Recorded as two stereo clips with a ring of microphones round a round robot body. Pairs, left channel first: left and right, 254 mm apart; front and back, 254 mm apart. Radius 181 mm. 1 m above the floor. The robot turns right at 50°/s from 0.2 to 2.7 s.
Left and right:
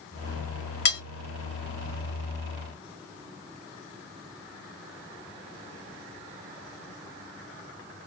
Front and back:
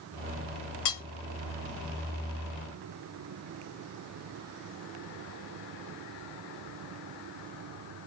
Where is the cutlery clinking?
35° left, 0.6 m; by 1.0 s 45° left, 0.6 m.